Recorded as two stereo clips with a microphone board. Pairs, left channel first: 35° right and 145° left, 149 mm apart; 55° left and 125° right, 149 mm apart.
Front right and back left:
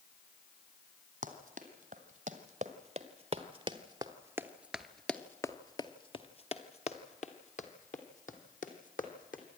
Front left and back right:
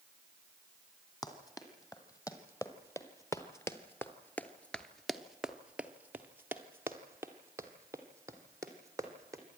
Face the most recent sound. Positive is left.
turn(degrees=-55)